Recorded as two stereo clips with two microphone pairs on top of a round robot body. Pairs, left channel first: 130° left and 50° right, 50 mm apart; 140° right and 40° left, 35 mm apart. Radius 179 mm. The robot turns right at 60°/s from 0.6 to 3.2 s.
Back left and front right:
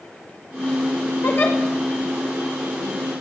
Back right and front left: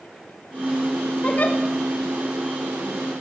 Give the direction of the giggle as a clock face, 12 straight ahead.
6 o'clock.